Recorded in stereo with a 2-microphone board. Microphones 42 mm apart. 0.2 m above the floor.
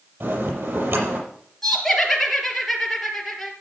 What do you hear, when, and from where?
0.2 s a bell: 65° right (ahead or behind), 6.5 m
1.6 s laughter: 5° left (ahead or behind), 3.5 m